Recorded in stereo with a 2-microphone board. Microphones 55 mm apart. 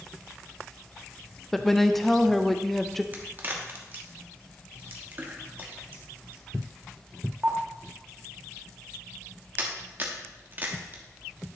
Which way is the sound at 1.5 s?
Centre (ahead or behind).